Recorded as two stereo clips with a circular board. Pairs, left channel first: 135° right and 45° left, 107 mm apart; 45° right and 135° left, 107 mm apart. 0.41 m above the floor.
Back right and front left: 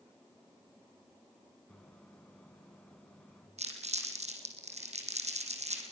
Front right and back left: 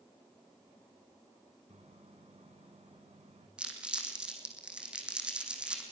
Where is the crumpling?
55° left, 4.5 m.